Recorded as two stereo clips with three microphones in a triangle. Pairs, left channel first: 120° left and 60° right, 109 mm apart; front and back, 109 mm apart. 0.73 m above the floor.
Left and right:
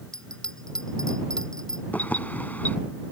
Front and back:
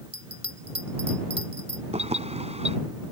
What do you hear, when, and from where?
0.1 s a bell: 155° right
1.9 s keys jangling: 165° right